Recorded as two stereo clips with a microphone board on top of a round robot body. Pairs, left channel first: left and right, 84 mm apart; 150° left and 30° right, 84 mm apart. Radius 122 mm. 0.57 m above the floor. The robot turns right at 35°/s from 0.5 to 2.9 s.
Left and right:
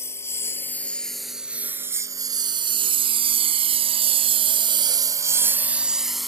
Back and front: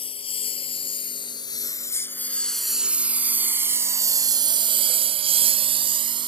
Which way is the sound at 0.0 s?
150° left.